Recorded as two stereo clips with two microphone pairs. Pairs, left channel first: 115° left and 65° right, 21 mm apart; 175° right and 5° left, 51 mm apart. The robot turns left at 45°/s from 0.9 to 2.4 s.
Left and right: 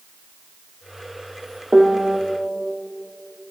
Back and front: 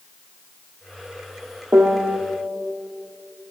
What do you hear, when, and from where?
1.7 s a piano: 15° right, 1.4 m; by 2.2 s 35° right, 1.4 m